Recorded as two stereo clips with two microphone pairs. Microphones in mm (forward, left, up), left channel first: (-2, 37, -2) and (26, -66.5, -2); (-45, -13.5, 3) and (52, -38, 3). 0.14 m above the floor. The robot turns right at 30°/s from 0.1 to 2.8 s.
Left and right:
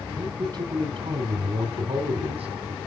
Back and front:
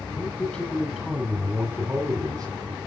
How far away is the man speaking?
About 3.5 m.